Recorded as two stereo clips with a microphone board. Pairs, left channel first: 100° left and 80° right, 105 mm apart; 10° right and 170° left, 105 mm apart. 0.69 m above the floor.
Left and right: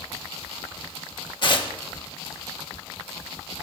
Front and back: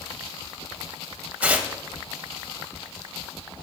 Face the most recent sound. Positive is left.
turn(degrees=100)